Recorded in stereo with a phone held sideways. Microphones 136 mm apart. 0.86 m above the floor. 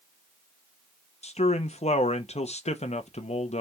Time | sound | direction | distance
1.2 | a man speaking | 55° left (ahead or behind) | 0.7 m